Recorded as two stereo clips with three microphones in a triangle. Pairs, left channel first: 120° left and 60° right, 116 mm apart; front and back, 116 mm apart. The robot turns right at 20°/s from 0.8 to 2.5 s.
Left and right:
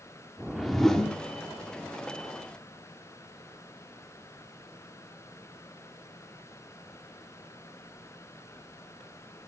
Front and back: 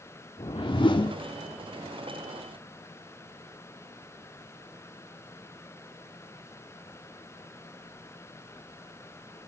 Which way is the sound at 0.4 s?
30° left.